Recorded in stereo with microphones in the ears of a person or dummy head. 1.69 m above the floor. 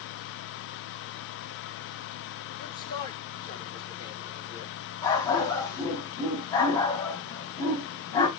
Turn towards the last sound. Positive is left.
turn(degrees=15)  # may be behind; listen again after turning